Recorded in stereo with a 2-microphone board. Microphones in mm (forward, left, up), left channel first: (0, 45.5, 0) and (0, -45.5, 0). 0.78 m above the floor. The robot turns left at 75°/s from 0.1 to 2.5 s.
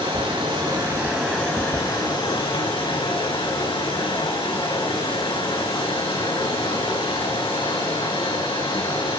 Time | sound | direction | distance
0.0 | running water | 95° right | 6 m